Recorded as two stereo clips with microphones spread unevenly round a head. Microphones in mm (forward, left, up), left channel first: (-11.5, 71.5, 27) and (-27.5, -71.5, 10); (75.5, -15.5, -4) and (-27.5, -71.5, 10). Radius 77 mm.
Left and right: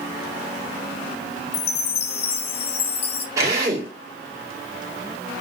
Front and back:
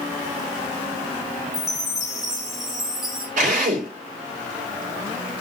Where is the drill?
165° right, 3.5 m.